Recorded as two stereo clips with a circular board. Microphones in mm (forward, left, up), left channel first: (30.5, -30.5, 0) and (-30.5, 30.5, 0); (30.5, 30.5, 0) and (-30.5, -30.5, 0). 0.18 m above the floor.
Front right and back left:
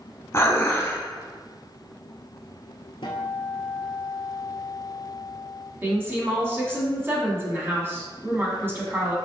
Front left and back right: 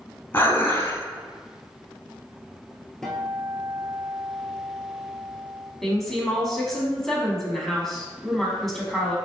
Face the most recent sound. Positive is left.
turn(degrees=130)